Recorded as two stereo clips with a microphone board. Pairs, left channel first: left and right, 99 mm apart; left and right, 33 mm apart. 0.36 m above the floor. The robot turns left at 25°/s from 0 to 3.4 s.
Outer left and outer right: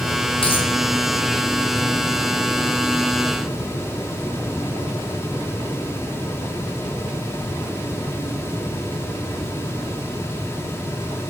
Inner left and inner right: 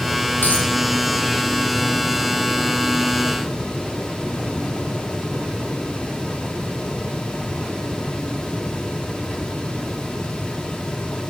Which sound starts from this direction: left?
A dropped coin, at 0.4 s.